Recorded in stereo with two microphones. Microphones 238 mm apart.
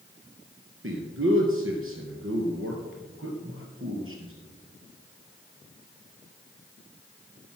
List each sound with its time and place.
0.8 s a man speaking: 60° right (ahead or behind), 2.5 m